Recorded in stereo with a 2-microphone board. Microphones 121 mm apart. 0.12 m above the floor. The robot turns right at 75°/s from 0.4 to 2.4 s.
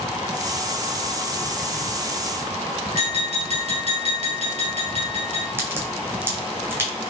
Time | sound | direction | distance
2.9 | tapping | 60° right (ahead or behind) | 1.6 m
5.6 | a crack | 20° right (ahead or behind) | 1.2 m